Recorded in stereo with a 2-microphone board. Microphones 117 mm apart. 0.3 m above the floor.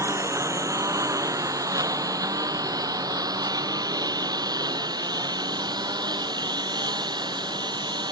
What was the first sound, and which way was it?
A lawn mower, 25° right (ahead or behind).